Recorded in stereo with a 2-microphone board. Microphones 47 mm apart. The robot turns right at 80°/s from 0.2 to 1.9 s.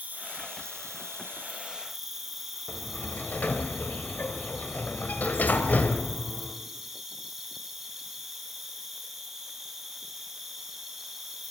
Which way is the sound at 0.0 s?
145° right.